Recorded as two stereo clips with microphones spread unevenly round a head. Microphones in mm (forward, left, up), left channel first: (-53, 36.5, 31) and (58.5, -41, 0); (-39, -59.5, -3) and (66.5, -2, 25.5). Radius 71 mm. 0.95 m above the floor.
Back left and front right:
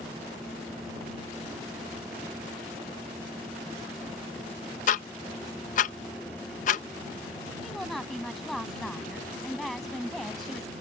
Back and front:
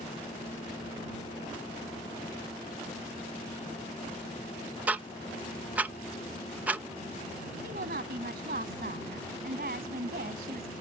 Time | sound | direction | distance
4.9 | ticking | 115° left | ?
7.6 | a woman speaking | 60° left | ?